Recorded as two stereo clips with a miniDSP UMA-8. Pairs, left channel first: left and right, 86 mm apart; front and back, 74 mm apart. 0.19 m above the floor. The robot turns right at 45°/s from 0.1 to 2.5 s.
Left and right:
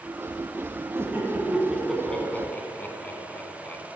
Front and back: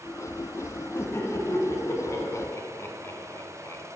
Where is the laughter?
40° right, 1.5 m; by 3.8 s 30° left, 1.5 m.